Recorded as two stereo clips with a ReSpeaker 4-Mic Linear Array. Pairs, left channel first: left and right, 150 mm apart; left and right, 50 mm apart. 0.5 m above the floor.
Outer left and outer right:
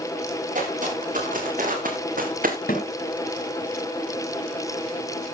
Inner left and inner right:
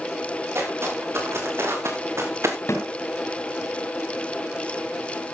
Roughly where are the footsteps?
Right.